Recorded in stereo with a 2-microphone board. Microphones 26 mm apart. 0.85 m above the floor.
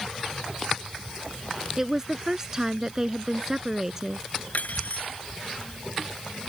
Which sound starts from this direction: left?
Cutlery clinking, at 4.5 s.